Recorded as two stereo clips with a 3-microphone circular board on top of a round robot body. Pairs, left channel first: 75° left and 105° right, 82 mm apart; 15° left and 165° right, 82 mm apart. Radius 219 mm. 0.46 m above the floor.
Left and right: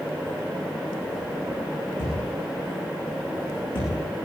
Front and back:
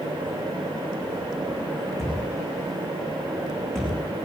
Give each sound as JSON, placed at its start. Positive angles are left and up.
{"t": 2.0, "sound": "a thud", "azimuth_deg": 100, "distance_m": 9.5}